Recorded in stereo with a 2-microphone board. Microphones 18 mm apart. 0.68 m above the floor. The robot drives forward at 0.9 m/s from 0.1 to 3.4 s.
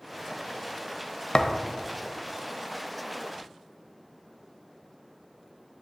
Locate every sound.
1.3 s a thud: 50° left (ahead or behind), 0.7 m; by 1.7 s 35° left (ahead or behind), 0.9 m